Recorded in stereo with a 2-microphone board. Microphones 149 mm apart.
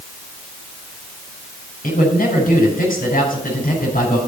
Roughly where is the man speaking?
Left.